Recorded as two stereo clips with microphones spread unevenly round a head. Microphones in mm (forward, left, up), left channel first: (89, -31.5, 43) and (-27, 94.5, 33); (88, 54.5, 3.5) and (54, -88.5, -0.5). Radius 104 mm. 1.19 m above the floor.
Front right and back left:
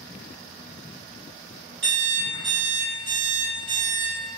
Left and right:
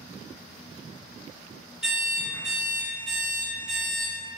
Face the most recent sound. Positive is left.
turn(degrees=170)